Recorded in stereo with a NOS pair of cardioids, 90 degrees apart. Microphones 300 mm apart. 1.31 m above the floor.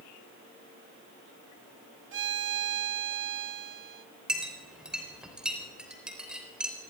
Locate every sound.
2.1 s a violin: 40° right, 1.1 m
4.3 s a clink: 5° right, 4 m